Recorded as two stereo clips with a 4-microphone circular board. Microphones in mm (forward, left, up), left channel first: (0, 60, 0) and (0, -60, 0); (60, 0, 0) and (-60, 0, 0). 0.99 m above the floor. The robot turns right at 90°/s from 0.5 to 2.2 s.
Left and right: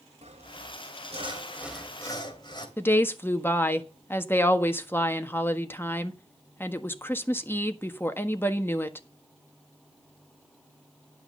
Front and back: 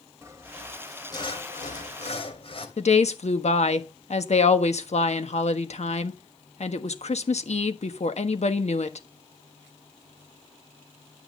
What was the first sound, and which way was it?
Sawing, 115° right.